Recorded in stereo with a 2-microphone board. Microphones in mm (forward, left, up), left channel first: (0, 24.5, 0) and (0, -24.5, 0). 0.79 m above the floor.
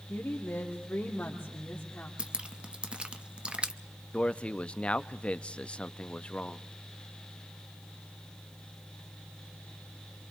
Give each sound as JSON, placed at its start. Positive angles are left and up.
{"t": 0.1, "sound": "a woman speaking", "side_deg": 40, "distance_m": 3.0}
{"t": 2.2, "sound": "dripping", "side_deg": -20, "distance_m": 0.7}
{"t": 4.1, "sound": "a man speaking", "side_deg": 25, "distance_m": 0.6}